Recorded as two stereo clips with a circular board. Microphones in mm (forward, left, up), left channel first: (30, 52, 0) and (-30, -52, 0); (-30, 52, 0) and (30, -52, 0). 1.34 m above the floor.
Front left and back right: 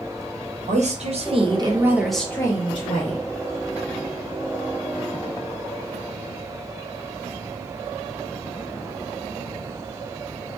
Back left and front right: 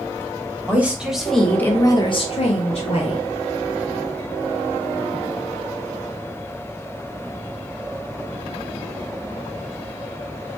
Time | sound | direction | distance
0.7 | a woman speaking | 135° right | 1.0 m